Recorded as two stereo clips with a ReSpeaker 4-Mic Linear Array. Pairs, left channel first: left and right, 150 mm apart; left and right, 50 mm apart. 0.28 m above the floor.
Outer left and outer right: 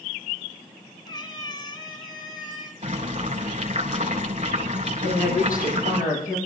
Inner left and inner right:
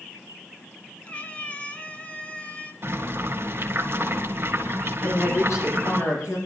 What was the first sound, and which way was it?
A cat meowing, 30° left (ahead or behind).